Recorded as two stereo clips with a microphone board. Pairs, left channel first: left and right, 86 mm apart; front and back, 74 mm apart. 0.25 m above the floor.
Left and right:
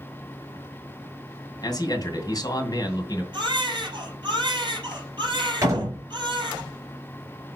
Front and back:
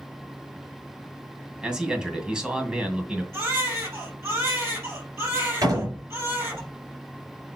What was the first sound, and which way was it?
A man speaking, 100° left.